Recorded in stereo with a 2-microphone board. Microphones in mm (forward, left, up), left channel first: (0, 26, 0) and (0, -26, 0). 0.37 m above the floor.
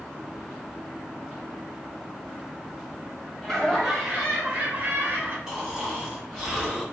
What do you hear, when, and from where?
3.4 s laughter: 10° left (ahead or behind), 1.6 m; by 5.4 s 45° right (ahead or behind), 1.7 m
5.5 s snoring: 10° right (ahead or behind), 1.4 m